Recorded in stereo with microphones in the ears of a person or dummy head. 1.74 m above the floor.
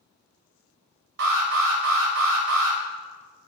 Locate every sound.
1.2 s an alarm: 60° right (ahead or behind), 1.8 m